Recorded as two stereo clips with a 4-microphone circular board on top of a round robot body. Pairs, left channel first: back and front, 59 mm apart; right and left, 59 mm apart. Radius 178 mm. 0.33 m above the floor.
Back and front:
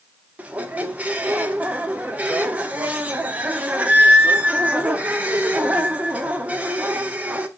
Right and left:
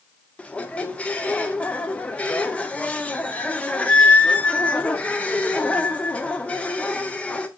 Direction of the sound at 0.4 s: 40° right.